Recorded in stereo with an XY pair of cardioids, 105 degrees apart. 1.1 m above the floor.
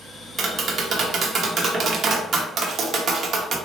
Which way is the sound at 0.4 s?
50° right.